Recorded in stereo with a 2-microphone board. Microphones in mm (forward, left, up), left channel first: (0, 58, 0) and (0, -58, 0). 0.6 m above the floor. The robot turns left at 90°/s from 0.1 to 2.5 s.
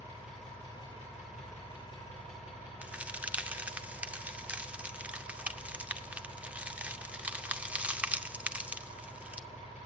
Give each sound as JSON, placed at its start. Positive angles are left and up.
{"t": 0.0, "sound": "an engine running", "azimuth_deg": -160, "distance_m": 8.5}
{"t": 2.8, "sound": "a crack", "side_deg": -10, "distance_m": 0.6}